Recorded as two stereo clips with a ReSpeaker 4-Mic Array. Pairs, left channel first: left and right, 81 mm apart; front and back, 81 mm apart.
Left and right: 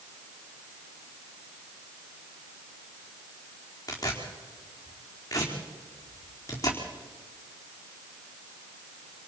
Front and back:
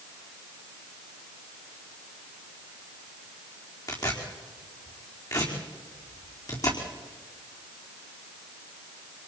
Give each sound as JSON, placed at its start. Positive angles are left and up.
{"t": 3.9, "sound": "tearing paper", "azimuth_deg": 40, "distance_m": 4.5}